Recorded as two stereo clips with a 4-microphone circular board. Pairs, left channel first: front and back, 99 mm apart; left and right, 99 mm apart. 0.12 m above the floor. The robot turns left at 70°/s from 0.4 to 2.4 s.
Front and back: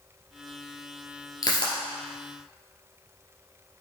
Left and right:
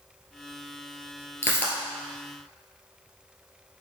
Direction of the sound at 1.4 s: 35° left.